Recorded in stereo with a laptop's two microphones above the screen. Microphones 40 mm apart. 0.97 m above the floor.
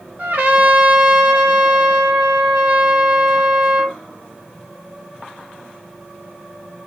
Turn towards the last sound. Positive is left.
turn(degrees=-60)  # may be behind; listen again after turning